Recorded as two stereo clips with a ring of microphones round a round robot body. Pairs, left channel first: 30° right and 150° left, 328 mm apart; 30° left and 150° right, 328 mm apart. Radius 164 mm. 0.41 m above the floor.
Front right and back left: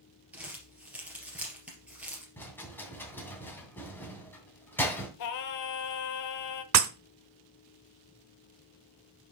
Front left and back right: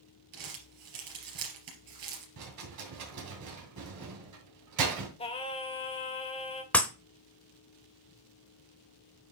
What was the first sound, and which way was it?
Crumpling, 125° right.